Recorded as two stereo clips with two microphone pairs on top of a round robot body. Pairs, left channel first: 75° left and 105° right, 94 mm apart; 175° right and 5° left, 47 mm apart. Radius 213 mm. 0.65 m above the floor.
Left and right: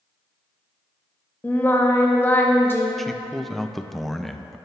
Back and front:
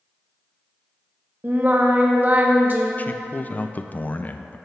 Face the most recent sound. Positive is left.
turn(degrees=160)